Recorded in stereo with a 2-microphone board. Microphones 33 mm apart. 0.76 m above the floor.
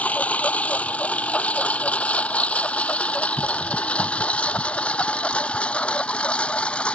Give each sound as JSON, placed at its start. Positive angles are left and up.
{"t": 0.0, "sound": "a lawn mower", "side_deg": 45}